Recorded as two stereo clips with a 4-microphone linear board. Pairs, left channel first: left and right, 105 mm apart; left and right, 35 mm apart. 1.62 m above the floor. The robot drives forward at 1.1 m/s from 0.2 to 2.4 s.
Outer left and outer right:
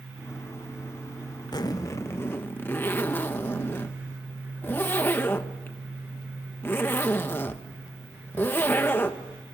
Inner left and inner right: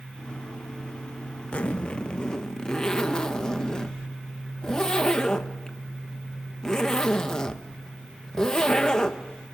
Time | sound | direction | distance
1.5 | a zipper | 40° left (ahead or behind) | 0.7 m